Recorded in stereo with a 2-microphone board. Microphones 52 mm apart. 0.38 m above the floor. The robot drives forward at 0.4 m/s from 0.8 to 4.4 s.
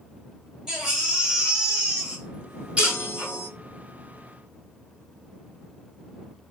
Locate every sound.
0.7 s a baby crying: 10° right (ahead or behind), 2 m; by 3.3 s 20° right (ahead or behind), 1.3 m
2.8 s a chime: 50° left (ahead or behind), 0.6 m; by 3.5 s 55° left (ahead or behind), 0.5 m